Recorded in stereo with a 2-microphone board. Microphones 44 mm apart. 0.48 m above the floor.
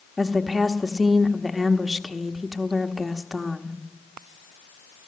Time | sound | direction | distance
0.2 | a woman speaking | centre (ahead or behind) | 1.2 m